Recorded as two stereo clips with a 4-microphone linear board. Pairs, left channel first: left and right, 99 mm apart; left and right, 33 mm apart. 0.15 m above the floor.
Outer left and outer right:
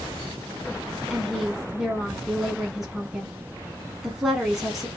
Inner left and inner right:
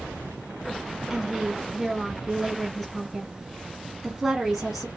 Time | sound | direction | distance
1.1 | a woman speaking | 5° right (ahead or behind) | 1.1 m